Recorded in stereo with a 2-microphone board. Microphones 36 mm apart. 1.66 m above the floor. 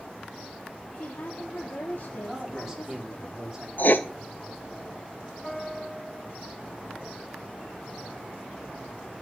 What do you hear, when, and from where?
0.9 s a woman speaking: 55° left (ahead or behind), 1.1 m
2.3 s a man speaking: 10° right (ahead or behind), 3.5 m
3.8 s writing: 55° left (ahead or behind), 0.8 m
5.4 s a piano: 15° left (ahead or behind), 5 m